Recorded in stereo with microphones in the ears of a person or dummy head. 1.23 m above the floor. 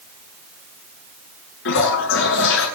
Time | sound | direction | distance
1.6 | a toilet flushing | 75° left (ahead or behind) | 8 m